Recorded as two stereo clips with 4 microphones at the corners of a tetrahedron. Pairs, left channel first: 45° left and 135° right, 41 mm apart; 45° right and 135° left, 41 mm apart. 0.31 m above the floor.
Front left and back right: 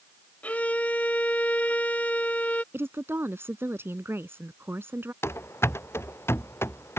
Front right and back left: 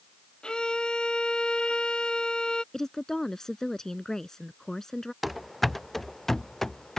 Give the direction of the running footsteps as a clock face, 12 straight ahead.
10 o'clock.